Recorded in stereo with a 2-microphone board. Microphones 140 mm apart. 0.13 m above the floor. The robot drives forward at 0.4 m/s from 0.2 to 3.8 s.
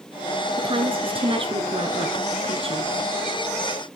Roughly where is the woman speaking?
Right.